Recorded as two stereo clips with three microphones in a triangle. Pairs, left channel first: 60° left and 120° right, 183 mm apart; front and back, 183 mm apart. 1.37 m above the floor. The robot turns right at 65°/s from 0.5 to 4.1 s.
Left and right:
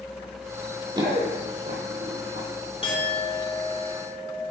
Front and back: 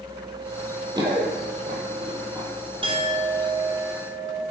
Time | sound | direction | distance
0.9 | running footsteps | 150° right | 1.5 m
2.8 | a clink | 115° left | 1.0 m